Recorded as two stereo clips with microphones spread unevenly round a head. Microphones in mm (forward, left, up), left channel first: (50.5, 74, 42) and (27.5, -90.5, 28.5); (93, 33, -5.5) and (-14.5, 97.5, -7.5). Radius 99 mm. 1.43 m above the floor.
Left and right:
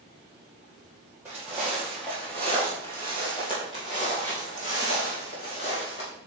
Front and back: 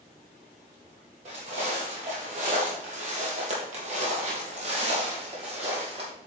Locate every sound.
1.2 s footsteps: straight behind, 2.5 m; by 6.1 s 115° left, 3 m